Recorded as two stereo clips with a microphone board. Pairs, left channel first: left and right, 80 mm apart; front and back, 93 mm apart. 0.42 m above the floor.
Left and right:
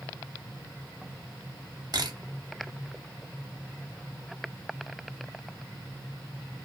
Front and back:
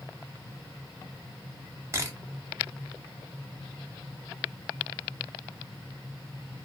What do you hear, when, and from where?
1.9 s a camera shutter: 120° right, 0.6 m